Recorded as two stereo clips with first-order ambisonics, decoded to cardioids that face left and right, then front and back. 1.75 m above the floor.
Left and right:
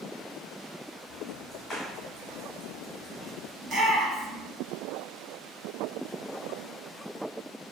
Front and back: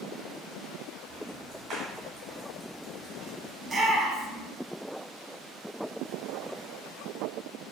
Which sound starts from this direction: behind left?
Ticking, at 1.1 s.